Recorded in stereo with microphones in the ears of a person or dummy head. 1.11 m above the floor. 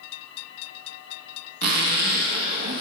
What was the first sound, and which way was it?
A zipper, 55° right (ahead or behind).